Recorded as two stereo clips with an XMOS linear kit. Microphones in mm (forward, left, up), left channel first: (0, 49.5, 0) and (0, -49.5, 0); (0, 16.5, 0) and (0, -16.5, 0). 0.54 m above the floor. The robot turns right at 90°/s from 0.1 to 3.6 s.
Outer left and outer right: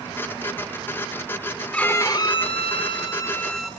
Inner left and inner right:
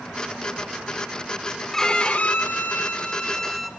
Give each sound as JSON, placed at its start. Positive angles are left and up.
{"t": 1.7, "sound": "a violin", "azimuth_deg": 10, "distance_m": 0.8}